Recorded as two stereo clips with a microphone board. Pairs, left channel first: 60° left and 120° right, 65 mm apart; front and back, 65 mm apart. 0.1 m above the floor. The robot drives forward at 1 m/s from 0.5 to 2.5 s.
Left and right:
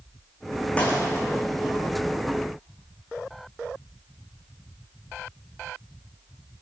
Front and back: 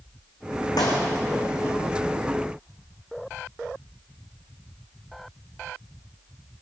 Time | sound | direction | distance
0.8 | a clap | 10° right | 4.5 m